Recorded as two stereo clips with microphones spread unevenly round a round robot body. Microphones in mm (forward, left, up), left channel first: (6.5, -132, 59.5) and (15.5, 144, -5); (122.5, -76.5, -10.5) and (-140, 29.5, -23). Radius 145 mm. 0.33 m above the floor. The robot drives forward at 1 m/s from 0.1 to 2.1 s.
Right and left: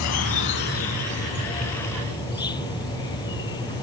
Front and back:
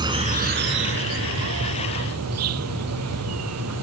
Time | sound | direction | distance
0.0 | an insect | 125° right | ?